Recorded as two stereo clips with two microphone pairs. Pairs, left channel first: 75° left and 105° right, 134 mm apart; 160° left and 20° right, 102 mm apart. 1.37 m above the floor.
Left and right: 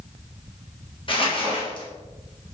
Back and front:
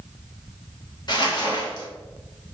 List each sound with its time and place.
1.1 s crumpling: 120° left, 1.0 m